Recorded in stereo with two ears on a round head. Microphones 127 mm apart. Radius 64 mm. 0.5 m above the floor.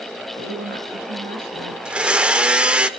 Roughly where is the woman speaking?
Right.